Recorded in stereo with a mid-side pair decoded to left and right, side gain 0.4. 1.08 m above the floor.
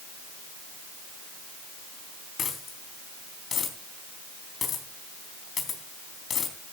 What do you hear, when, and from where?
2.4 s a dropped coin: 55° left, 3.5 m